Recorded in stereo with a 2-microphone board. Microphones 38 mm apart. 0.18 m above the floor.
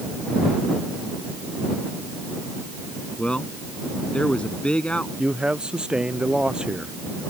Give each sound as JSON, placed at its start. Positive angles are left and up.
{"t": 3.2, "sound": "a man speaking", "side_deg": 30}
{"t": 5.2, "sound": "a man speaking", "side_deg": -25}